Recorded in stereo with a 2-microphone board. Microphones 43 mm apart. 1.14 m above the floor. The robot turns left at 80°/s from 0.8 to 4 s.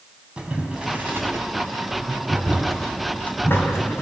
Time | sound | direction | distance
0.4 | boiling | 20° right (ahead or behind) | 3.5 m